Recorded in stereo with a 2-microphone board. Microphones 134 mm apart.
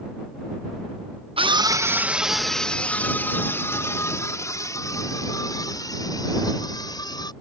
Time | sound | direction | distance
1.4 | a scream | 45° right (ahead or behind) | ?